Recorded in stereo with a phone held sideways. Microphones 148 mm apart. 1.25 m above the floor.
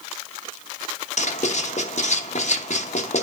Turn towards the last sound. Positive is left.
turn(degrees=55)  # may be behind; listen again after turning